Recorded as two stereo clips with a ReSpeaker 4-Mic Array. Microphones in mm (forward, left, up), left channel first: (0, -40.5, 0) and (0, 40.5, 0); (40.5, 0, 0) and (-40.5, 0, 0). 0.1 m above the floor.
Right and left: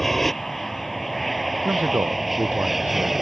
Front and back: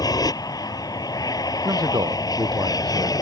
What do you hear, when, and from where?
0.0 s an aircraft: 5° right; by 3.2 s straight ahead
1.6 s a man speaking: 150° left